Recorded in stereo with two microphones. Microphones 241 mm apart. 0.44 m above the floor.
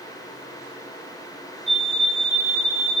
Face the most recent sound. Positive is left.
turn(degrees=55)  # may be behind; listen again after turning